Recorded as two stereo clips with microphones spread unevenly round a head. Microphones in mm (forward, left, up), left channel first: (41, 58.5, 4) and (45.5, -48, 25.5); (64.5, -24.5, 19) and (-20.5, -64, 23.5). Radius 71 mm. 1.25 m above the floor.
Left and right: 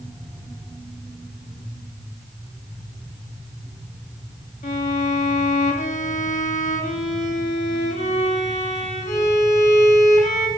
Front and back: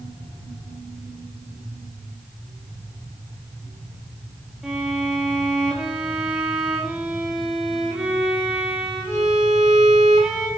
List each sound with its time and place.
4.6 s a violin: 120° left, 2.5 m